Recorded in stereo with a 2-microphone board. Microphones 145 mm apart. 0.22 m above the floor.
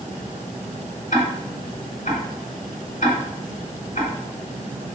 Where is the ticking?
60° left (ahead or behind), 1.2 m.